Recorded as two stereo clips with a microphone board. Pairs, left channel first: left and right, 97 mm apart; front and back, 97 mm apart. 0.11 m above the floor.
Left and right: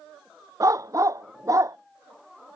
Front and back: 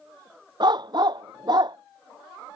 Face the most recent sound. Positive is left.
turn(degrees=-145)